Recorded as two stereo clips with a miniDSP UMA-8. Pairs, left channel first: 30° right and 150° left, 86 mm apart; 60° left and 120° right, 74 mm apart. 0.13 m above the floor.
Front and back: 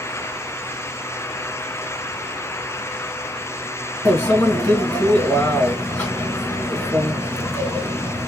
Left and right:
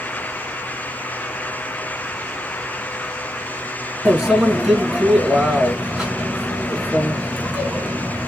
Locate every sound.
4.0 s a microwave: 60° right, 1.5 m